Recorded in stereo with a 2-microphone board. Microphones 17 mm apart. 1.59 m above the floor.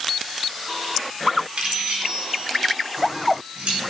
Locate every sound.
1.6 s keys jangling: 70° right (ahead or behind), 4 m